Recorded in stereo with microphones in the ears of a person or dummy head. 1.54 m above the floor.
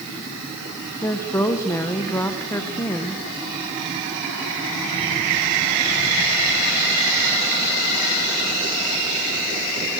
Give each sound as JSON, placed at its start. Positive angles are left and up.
{"t": 1.0, "sound": "a woman speaking", "side_deg": 10, "distance_m": 1.0}